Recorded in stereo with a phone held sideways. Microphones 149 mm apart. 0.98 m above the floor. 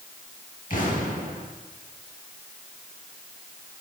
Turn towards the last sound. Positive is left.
turn(degrees=60)  # may be behind; listen again after turning